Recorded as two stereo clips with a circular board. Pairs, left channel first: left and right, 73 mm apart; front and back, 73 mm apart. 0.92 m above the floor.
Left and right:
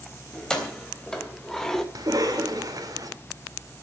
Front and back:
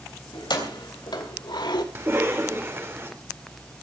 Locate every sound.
0.3 s keys jangling: 10° left, 3.5 m; by 1.9 s 5° left, 1.7 m
1.9 s a cough: 125° right, 4 m